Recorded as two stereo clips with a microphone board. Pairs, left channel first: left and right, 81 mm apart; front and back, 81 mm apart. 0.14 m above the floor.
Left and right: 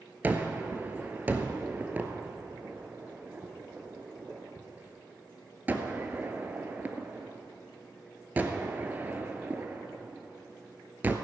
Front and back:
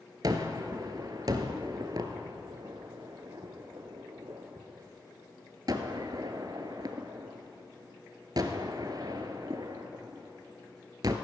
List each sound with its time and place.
0.2 s a gunshot: 155° right, 1.0 m